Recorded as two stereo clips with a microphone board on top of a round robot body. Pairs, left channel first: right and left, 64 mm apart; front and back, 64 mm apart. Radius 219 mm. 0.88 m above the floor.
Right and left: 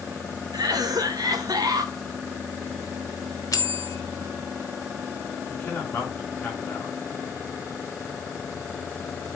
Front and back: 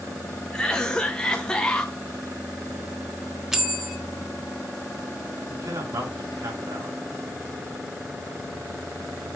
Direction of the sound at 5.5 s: 155° right.